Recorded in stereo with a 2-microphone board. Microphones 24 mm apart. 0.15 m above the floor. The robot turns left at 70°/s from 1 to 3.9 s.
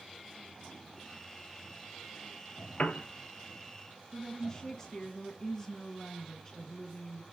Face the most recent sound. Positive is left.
turn(degrees=25)  # may be behind; listen again after turning